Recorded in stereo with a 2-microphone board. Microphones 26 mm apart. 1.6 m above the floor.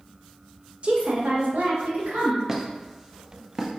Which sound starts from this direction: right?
A woman speaking, at 0.8 s.